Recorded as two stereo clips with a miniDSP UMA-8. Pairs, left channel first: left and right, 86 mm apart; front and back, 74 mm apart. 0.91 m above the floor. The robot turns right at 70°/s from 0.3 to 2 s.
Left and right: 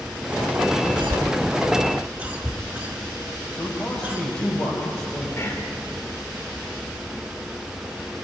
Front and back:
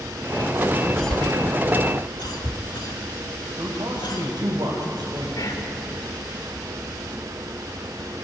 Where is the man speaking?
150° left, 4.5 m.